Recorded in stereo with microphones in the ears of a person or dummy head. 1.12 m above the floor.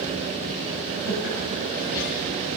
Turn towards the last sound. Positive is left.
turn(degrees=65)  # may be behind; listen again after turning